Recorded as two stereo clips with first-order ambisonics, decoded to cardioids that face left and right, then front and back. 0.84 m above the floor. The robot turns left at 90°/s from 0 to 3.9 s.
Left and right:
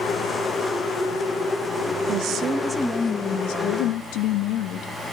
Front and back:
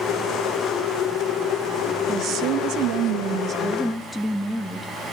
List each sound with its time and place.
2.1 s a woman speaking: 120° right, 1.0 m; by 4.9 s 80° left, 1.0 m